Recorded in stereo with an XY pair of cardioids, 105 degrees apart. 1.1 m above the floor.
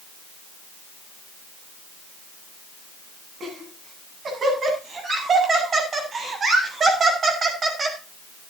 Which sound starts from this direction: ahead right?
Laughter, at 3.4 s.